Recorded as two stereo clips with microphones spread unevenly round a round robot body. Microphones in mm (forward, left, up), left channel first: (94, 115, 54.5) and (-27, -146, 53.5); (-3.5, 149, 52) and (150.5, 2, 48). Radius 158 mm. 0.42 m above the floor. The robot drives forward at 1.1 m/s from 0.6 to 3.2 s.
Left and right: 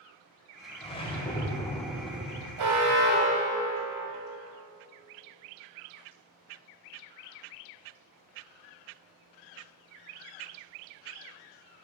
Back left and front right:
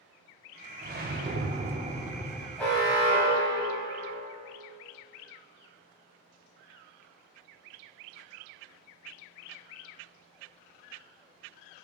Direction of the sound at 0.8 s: 5° right.